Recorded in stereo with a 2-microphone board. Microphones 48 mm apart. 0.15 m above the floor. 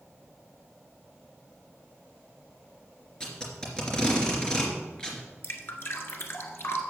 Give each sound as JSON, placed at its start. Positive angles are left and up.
{"t": 3.2, "sound": "tape being pulled", "side_deg": 15, "distance_m": 3.0}
{"t": 5.4, "sound": "dripping", "side_deg": 55, "distance_m": 1.5}